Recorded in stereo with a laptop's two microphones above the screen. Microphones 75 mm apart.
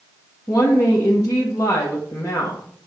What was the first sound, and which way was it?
A woman speaking, 50° left (ahead or behind).